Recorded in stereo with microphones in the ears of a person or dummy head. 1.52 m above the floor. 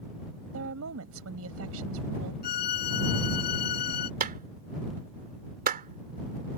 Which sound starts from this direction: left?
A violin, at 2.4 s.